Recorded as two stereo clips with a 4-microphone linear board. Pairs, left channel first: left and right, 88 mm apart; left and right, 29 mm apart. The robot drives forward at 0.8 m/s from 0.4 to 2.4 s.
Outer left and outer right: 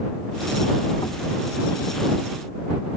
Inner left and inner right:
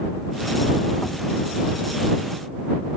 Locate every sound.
1.0 s knocking: 60° left (ahead or behind); by 1.2 s 55° left (ahead or behind)